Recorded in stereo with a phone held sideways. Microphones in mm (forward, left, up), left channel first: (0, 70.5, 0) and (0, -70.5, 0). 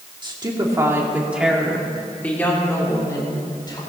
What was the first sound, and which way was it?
A woman speaking, 35° right (ahead or behind).